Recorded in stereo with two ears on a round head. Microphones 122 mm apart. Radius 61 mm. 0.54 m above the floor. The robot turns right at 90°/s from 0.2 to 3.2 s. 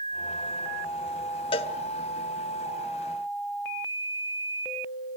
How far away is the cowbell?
About 1.0 m.